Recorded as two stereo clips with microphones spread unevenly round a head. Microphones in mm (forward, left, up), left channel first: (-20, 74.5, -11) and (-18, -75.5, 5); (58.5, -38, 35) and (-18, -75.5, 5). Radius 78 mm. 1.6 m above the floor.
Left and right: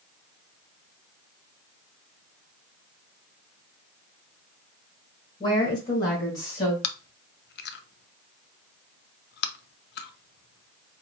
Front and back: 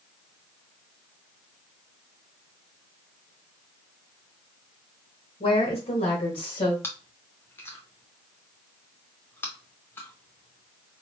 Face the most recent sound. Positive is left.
turn(degrees=105)